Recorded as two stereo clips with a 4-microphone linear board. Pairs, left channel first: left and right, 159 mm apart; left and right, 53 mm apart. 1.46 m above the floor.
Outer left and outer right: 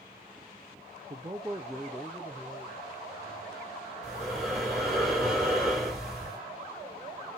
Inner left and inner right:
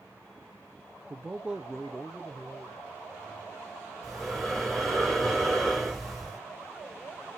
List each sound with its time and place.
1.1 s a man speaking: 40° right (ahead or behind), 0.6 m; by 3.7 s 30° left (ahead or behind), 2 m
4.0 s breathing: centre (ahead or behind), 3.5 m